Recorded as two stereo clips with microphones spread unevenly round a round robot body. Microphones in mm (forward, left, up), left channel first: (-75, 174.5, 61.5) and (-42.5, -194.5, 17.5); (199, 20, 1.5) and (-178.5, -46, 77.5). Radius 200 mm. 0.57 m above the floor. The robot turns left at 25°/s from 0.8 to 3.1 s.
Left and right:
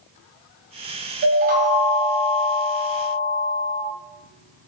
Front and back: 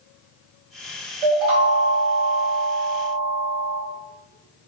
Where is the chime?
145° right, 0.7 m; by 3.8 s 165° left, 0.7 m.